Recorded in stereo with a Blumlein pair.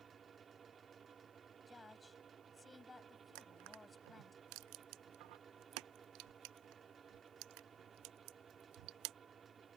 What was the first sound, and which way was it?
A fan, 20° right.